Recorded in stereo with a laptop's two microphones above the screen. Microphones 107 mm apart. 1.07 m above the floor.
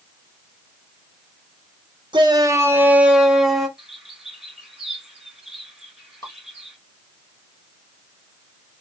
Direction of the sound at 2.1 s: 45° right (ahead or behind).